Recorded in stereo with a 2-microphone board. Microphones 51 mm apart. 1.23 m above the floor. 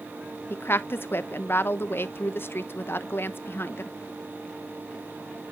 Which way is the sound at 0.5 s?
45° left (ahead or behind).